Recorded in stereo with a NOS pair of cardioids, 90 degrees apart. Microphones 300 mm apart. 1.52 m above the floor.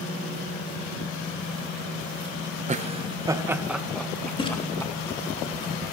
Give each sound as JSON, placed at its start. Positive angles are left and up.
{"t": 2.7, "sound": "laughter", "azimuth_deg": -25, "distance_m": 1.2}
{"t": 4.4, "sound": "a splash", "azimuth_deg": 15, "distance_m": 3.5}